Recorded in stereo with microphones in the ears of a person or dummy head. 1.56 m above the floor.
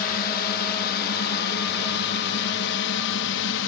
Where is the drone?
50° left (ahead or behind); by 3.7 s 65° left (ahead or behind).